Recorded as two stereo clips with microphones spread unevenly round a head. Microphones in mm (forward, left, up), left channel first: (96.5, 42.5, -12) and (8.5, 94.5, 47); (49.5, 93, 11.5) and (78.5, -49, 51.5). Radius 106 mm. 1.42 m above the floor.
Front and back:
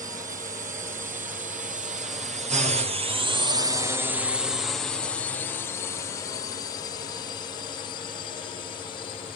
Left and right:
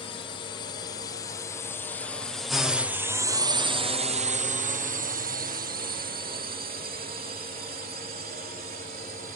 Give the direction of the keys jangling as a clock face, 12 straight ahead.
I don't hear keys jangling.